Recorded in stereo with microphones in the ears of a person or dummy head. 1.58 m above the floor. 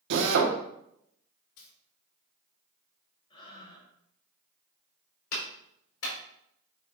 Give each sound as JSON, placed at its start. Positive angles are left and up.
{"t": 0.1, "sound": "a drill", "side_deg": -60, "distance_m": 1.4}
{"t": 1.6, "sound": "a dropped coin", "side_deg": 60, "distance_m": 1.9}
{"t": 3.3, "sound": "breathing", "side_deg": 25, "distance_m": 3.5}
{"t": 5.3, "sound": "a clap", "side_deg": 80, "distance_m": 4.5}